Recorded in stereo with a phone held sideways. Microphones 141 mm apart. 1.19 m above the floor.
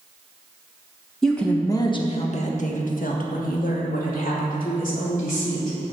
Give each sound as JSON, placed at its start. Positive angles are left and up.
{"t": 1.2, "sound": "a woman speaking", "side_deg": 0, "distance_m": 1.2}